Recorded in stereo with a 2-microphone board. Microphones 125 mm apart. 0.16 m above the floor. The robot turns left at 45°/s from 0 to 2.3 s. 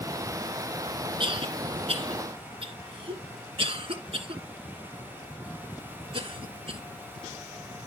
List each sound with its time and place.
1.2 s a cough: 45° right (ahead or behind), 1.8 m